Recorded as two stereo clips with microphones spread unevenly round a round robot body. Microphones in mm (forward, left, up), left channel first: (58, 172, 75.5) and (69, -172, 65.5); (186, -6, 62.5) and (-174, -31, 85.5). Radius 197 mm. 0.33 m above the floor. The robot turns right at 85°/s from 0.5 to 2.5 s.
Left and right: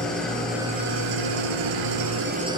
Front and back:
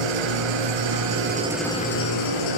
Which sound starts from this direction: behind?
An engine running, at 0.0 s.